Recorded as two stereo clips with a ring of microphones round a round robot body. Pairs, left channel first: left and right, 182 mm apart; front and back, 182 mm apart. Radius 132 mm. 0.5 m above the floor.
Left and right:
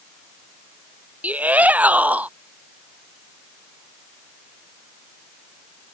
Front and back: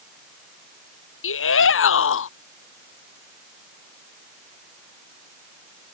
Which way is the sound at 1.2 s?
10° right.